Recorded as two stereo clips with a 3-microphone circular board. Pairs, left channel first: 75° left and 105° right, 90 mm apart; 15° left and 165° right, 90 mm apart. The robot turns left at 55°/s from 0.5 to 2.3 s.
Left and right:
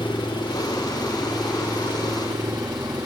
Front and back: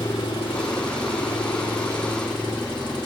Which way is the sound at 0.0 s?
35° left.